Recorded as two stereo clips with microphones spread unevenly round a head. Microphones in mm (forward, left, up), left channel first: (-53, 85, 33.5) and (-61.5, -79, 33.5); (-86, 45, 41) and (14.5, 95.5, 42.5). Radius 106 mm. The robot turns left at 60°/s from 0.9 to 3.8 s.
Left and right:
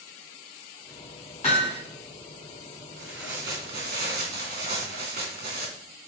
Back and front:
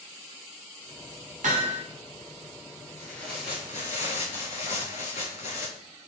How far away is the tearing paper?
About 3.5 m.